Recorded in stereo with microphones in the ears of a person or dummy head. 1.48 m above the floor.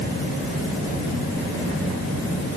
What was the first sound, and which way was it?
Only background noise.